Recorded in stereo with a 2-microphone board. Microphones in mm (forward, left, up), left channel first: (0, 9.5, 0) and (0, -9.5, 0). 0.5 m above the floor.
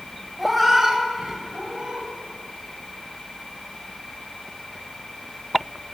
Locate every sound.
0.4 s a cat meowing: centre (ahead or behind), 1.1 m; by 2.1 s 65° right (ahead or behind), 1.0 m